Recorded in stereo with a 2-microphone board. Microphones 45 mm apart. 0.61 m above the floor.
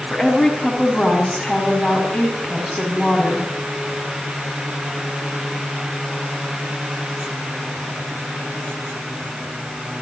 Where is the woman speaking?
Centre (ahead or behind), 5.5 m.